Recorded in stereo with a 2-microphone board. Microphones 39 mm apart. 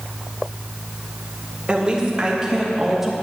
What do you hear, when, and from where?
1.7 s a woman speaking: 25° right (ahead or behind), 3 m; by 3.1 s 5° right (ahead or behind), 2.5 m